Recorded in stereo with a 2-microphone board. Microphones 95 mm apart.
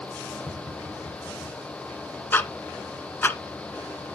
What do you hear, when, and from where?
0.5 s tapping: 5° right (ahead or behind), 6.5 m
2.3 s ticking: 20° left (ahead or behind), 1.3 m